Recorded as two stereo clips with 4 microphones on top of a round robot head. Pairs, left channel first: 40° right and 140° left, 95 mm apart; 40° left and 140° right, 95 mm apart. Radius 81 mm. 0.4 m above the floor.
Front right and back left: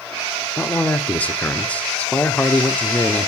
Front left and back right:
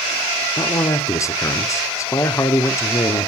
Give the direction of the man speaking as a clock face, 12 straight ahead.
11 o'clock.